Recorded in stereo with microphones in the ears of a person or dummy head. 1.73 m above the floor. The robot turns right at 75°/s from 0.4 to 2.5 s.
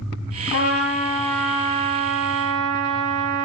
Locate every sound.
0.5 s a trumpet: 115° left, 3 m; by 3.5 s 100° right, 3 m